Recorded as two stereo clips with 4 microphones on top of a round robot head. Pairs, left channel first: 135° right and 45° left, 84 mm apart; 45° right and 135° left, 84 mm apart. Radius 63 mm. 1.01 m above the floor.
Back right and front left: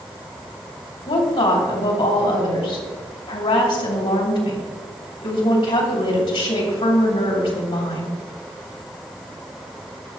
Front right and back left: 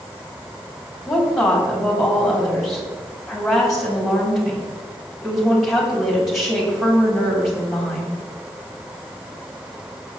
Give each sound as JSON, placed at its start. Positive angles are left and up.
{"t": 1.1, "sound": "a woman speaking", "azimuth_deg": -135, "distance_m": 3.5}